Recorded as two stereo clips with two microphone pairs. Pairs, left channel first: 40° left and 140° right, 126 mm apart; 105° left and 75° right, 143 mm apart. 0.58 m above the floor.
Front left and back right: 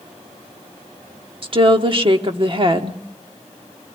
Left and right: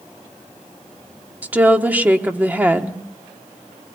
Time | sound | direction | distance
1.4 | a woman speaking | 145° right | 1.5 m